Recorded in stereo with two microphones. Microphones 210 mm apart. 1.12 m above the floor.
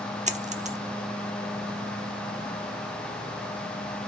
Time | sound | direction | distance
0.3 | a dropped coin | 35° right (ahead or behind) | 0.9 m